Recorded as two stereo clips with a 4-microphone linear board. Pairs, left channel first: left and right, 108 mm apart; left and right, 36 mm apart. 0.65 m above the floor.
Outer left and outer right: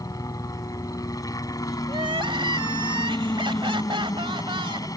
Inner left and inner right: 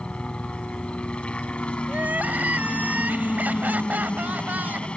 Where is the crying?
55° right (ahead or behind).